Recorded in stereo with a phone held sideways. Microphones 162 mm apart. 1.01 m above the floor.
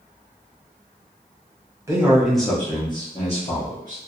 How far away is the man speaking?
About 0.7 m.